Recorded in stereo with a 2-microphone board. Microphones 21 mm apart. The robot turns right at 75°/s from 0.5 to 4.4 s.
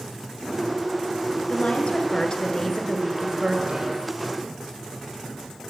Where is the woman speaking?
65° left, 1.9 m; by 4.1 s 95° right, 1.9 m.